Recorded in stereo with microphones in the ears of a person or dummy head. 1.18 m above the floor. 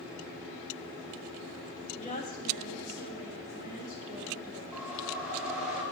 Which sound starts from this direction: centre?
A whoosh, at 4.7 s.